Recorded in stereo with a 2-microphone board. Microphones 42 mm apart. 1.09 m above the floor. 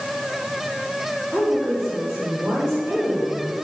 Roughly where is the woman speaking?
Right.